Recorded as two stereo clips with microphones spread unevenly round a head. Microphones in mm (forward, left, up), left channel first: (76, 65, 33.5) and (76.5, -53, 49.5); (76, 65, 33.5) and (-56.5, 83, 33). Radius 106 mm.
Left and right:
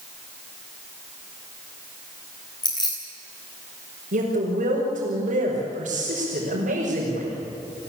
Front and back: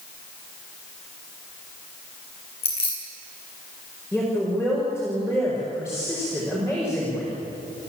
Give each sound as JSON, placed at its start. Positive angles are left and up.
{"t": 2.6, "sound": "keys jangling", "azimuth_deg": 35, "distance_m": 9.5}
{"t": 4.1, "sound": "a woman speaking", "azimuth_deg": -100, "distance_m": 5.5}